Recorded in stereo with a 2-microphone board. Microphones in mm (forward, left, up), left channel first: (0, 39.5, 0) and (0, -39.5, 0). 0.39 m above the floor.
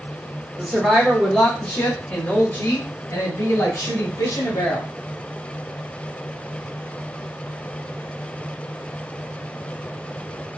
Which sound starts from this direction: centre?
A woman speaking, at 0.6 s.